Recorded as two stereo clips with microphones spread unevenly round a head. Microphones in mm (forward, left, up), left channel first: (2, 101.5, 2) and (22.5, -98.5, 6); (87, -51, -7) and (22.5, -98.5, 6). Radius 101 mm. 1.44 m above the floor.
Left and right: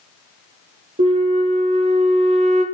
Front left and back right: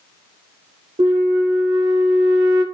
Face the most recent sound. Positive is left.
turn(degrees=-140)